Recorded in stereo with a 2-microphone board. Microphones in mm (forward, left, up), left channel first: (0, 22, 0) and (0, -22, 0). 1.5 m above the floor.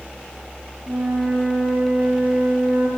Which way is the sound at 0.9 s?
50° right (ahead or behind).